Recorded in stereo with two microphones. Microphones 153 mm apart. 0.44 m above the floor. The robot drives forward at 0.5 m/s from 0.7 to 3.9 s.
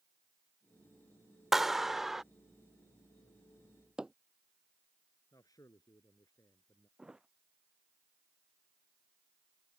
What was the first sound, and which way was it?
A clap, centre (ahead or behind).